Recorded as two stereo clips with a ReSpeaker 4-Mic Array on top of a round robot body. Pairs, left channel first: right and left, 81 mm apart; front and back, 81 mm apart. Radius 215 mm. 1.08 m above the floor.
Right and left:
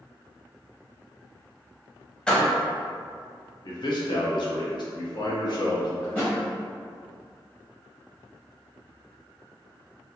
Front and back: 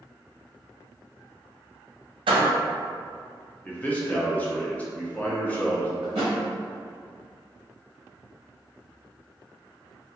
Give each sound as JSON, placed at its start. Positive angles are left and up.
{"t": 2.3, "sound": "a door slam", "azimuth_deg": -170, "distance_m": 0.6}
{"t": 3.6, "sound": "a man speaking", "azimuth_deg": -70, "distance_m": 1.0}
{"t": 6.0, "sound": "a thud", "azimuth_deg": -165, "distance_m": 0.6}